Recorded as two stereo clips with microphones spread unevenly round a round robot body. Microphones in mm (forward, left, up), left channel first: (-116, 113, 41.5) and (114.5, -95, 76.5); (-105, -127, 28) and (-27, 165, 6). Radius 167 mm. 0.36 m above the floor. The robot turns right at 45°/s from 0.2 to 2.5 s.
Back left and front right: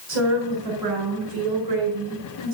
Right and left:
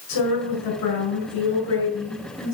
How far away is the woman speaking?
About 5.5 m.